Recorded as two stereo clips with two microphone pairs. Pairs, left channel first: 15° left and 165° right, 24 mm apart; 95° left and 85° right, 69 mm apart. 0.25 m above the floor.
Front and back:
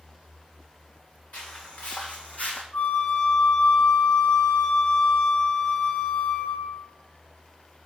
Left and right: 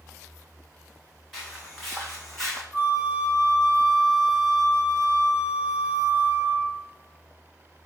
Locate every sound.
1.3 s footsteps: straight ahead, 1.5 m; by 2.6 s 15° left, 0.8 m
2.7 s a flute: 5° left, 2 m